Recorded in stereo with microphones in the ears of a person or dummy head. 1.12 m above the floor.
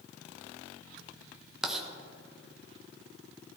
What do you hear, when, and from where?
1.6 s writing: centre (ahead or behind), 1.2 m